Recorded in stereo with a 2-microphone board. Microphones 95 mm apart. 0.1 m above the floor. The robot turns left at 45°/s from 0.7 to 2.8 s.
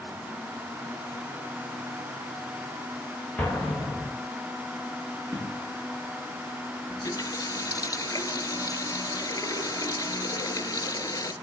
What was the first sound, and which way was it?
An explosion, 15° left (ahead or behind).